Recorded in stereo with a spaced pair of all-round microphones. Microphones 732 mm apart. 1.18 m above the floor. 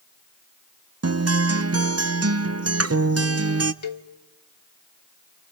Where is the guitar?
25° right (ahead or behind), 0.5 m.